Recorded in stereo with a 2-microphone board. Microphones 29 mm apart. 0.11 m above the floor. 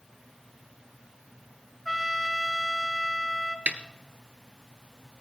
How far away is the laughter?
I don't hear laughter.